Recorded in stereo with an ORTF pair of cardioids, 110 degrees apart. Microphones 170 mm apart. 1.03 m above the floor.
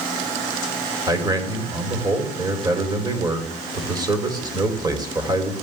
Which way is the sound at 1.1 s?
25° right.